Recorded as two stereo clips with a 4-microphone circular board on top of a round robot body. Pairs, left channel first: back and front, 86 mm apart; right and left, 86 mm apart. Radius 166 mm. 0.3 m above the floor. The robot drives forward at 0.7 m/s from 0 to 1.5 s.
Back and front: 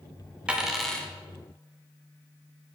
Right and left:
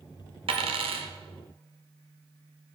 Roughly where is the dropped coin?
Left.